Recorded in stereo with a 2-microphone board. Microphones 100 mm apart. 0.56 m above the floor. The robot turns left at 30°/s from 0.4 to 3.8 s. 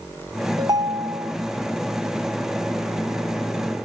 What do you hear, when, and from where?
0.6 s a ringtone: 40° right (ahead or behind), 0.6 m; by 1.3 s 35° right (ahead or behind), 0.6 m